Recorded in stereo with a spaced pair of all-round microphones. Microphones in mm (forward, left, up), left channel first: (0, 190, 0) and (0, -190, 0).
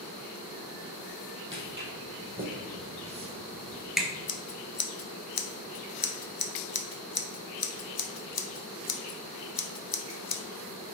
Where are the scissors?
70° left (ahead or behind), 0.5 m.